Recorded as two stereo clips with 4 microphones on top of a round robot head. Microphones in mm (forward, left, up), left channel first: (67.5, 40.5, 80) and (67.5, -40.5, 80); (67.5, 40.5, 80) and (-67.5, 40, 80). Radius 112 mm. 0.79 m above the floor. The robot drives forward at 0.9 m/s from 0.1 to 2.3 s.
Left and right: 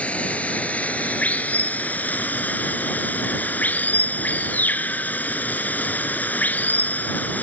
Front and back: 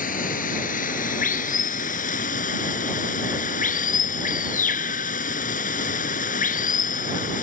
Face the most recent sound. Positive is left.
turn(degrees=20)